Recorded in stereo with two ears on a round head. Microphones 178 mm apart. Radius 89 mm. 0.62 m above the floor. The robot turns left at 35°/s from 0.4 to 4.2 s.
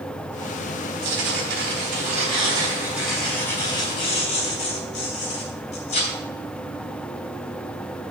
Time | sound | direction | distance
1.0 | tearing paper | 105° right | 4 m